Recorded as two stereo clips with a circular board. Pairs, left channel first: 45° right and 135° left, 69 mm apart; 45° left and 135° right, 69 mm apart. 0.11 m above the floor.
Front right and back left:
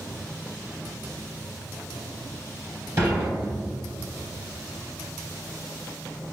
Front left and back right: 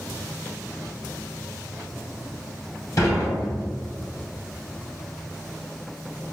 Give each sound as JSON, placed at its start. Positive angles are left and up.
{"t": 3.0, "sound": "dishes clattering", "azimuth_deg": 85, "distance_m": 1.8}